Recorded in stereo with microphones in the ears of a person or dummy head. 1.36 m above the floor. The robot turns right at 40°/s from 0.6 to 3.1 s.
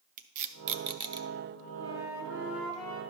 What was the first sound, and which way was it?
Tape being pulled, 45° right (ahead or behind).